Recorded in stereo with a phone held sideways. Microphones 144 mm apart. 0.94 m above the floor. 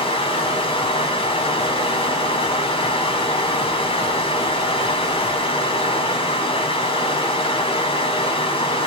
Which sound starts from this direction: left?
Running water, at 0.0 s.